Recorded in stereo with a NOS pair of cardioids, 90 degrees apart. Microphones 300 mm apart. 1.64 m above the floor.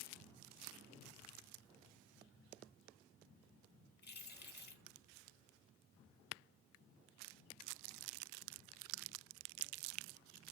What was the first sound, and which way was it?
Keys jangling, 35° left.